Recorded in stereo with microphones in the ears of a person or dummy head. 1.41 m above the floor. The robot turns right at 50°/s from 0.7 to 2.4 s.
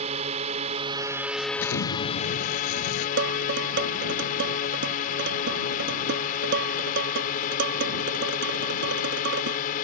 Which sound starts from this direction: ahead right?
A drone, at 0.0 s.